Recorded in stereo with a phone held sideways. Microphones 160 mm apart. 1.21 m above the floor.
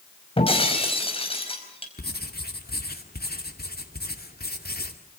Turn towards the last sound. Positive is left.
turn(degrees=75)  # may be behind; listen again after turning